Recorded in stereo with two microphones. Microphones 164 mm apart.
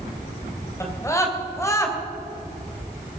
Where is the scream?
20° left (ahead or behind), 2.5 m.